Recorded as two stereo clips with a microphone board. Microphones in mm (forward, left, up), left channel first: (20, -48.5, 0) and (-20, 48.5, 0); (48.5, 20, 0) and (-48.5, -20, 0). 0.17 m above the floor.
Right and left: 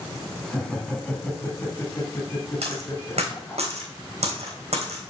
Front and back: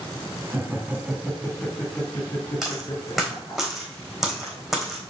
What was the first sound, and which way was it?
Laughter, 145° right.